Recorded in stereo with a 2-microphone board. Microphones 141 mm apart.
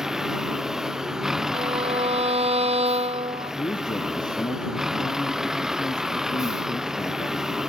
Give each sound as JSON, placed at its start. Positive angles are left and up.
{"t": 0.0, "sound": "a vehicle", "side_deg": -5}
{"t": 1.5, "sound": "a violin", "side_deg": -50}
{"t": 3.5, "sound": "a man speaking", "side_deg": 30}